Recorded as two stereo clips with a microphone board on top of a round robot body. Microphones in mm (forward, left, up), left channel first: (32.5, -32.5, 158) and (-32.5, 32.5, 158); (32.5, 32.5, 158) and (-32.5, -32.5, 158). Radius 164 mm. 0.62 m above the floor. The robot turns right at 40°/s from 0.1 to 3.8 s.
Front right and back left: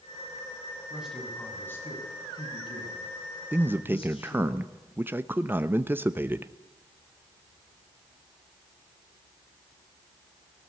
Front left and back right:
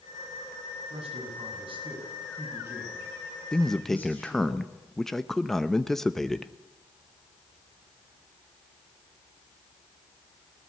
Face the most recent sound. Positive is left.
turn(degrees=125)